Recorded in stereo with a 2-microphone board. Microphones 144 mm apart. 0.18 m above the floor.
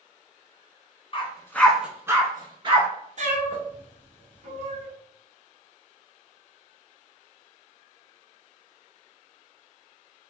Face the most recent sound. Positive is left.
turn(degrees=-55)  # may be behind; listen again after turning